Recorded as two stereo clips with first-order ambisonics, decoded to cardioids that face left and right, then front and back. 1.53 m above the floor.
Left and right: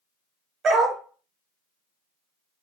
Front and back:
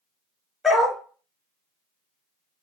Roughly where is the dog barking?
Right.